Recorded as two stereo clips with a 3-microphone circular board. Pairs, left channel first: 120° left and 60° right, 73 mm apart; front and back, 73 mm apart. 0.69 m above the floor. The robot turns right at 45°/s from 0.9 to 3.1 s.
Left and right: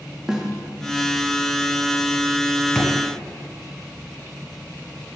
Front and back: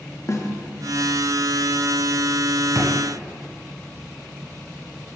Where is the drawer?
155° right, 1.2 m; by 2.9 s 145° right, 1.2 m.